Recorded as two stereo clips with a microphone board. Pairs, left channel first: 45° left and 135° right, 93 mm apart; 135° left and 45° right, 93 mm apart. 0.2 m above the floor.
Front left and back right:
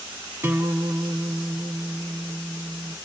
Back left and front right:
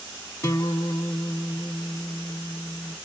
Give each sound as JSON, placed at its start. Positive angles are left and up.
{"t": 0.4, "sound": "a guitar", "azimuth_deg": 170, "distance_m": 0.7}